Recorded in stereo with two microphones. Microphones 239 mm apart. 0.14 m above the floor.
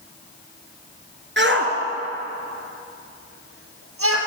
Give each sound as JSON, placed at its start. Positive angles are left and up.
{"t": 1.4, "sound": "a shout", "side_deg": -50, "distance_m": 2.0}